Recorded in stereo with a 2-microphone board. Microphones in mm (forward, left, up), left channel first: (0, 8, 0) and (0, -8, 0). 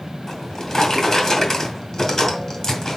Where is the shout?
I don't hear a shout.